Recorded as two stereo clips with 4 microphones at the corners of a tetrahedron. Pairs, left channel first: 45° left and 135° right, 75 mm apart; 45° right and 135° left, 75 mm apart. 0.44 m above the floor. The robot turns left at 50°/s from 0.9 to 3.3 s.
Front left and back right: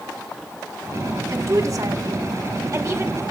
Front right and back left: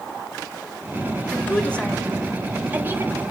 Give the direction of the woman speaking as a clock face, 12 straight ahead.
3 o'clock.